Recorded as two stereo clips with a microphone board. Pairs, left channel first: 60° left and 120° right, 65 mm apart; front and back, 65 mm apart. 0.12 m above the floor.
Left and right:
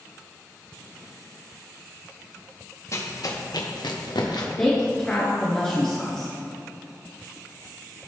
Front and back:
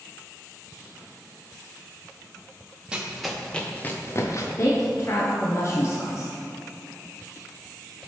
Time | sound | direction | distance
2.9 | running footsteps | 105° left | 1.7 m
4.6 | a woman speaking | 10° right | 1.5 m